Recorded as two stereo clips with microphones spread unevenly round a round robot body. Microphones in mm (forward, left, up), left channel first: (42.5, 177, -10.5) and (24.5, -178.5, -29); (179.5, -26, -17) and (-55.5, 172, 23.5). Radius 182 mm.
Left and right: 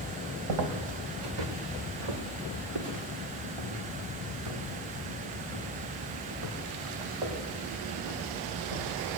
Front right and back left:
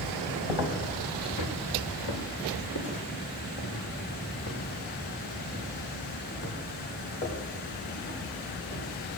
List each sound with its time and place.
0.5 s footsteps: 70° right, 2.5 m; by 8.9 s 110° right, 9.5 m